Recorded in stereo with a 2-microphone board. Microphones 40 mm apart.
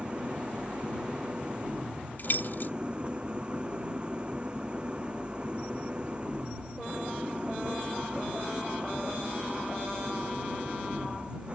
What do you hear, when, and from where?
0.0 s an engine running: 25° right (ahead or behind)
2.2 s keys jangling: 50° left (ahead or behind)